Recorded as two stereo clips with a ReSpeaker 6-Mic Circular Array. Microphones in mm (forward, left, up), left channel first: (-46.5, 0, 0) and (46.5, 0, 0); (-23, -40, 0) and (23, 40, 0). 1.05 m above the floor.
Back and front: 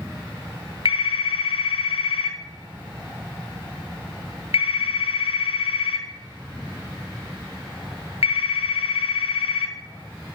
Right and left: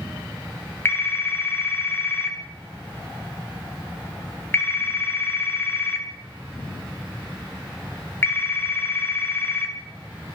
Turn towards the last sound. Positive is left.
turn(degrees=175)